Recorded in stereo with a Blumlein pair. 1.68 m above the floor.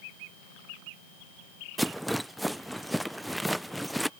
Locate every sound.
1.8 s a rattle: 5° right